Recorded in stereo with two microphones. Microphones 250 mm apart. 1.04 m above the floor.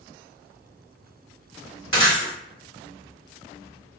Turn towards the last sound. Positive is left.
turn(degrees=-55)  # may be behind; listen again after turning